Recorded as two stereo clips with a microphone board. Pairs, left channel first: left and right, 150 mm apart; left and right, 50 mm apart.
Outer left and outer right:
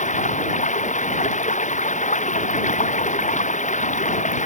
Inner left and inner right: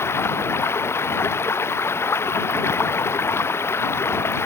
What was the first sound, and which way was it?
Running water, 55° left (ahead or behind).